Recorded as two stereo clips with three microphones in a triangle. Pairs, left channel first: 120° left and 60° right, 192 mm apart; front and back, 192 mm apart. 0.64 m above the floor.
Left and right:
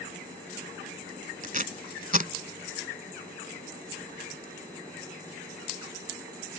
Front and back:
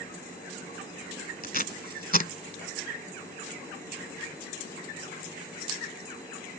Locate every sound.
1.4 s tape being pulled: 25° right